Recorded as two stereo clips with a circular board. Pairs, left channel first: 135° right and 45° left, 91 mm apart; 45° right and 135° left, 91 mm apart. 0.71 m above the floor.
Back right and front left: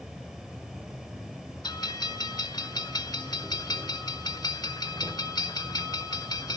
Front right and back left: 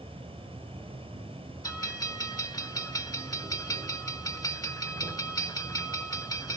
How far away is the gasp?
I don't hear a gasp.